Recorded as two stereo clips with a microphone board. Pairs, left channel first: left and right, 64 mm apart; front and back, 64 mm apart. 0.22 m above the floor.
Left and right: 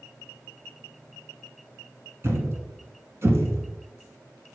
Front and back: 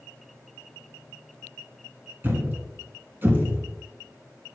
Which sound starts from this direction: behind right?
A thud, at 2.2 s.